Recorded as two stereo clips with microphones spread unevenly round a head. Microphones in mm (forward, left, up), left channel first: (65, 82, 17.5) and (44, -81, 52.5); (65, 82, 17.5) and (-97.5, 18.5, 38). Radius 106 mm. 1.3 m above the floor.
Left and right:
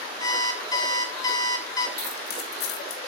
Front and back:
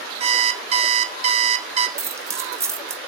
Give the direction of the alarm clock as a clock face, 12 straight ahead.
7 o'clock.